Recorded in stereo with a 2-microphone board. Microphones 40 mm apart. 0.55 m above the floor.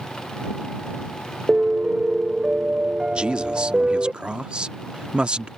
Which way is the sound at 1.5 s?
30° right (ahead or behind).